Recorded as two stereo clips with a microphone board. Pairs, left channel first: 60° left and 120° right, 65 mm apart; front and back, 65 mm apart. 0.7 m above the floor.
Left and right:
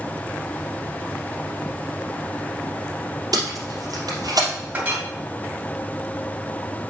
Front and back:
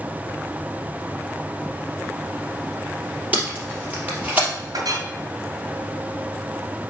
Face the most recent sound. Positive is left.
turn(degrees=180)